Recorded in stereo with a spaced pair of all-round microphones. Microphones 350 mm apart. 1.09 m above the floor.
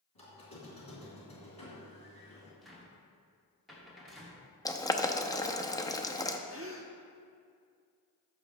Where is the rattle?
I don't hear a rattle.